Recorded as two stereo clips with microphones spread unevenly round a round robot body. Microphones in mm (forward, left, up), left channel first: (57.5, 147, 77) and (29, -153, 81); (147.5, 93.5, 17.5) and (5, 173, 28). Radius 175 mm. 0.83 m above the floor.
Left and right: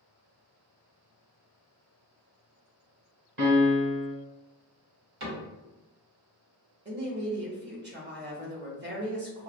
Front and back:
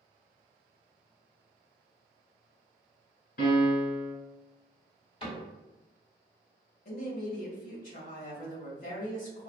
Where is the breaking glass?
I don't hear breaking glass.